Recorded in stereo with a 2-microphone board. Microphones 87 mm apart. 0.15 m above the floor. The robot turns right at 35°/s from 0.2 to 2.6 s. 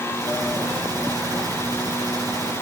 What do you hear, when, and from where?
Only background noise.